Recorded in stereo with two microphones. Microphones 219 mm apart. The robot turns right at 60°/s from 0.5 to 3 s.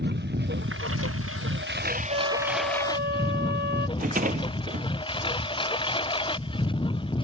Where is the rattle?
40° right (ahead or behind).